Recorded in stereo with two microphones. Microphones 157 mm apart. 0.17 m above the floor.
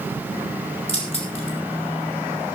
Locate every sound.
0.9 s keys jangling: 40° left (ahead or behind), 4.5 m